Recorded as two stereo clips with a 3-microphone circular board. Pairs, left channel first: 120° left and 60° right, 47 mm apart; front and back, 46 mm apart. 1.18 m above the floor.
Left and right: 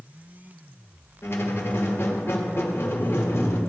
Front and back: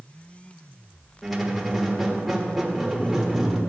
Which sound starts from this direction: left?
A squeak, at 1.2 s.